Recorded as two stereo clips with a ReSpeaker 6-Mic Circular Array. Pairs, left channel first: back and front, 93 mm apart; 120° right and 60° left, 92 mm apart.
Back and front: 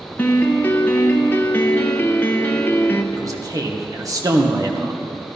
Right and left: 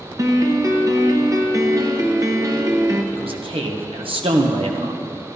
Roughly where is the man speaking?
Ahead left.